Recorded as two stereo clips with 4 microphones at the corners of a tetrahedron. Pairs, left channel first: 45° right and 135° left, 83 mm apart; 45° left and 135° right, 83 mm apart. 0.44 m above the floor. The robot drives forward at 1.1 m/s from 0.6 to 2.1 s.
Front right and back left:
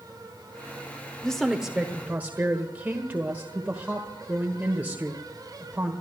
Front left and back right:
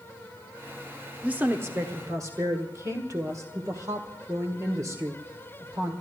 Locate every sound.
1.2 s a woman speaking: 110° right, 1.2 m; by 5.9 s 160° right, 1.6 m